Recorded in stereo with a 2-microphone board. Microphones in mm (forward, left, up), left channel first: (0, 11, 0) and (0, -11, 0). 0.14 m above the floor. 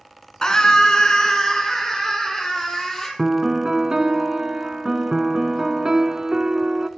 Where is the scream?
30° left (ahead or behind), 1.4 m; by 3.1 s 15° left (ahead or behind), 3 m.